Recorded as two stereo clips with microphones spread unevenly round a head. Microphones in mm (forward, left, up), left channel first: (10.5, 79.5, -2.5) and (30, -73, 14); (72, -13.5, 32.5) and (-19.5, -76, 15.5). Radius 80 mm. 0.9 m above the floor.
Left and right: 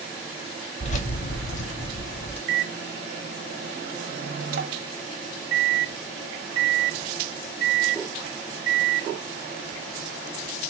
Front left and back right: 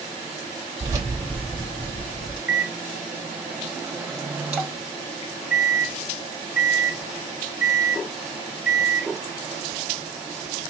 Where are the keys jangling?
150° left, 0.7 m; by 2.4 s 45° left, 0.8 m.